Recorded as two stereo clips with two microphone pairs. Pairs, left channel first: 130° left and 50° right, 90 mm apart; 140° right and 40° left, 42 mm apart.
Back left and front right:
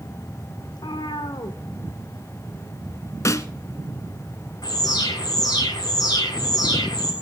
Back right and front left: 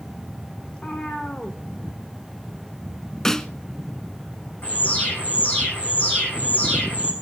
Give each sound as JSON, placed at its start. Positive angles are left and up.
{"t": 0.7, "sound": "a cat meowing", "azimuth_deg": 155, "distance_m": 2.0}
{"t": 3.2, "sound": "a snare drum", "azimuth_deg": 150, "distance_m": 0.8}
{"t": 4.6, "sound": "an alarm", "azimuth_deg": 170, "distance_m": 9.0}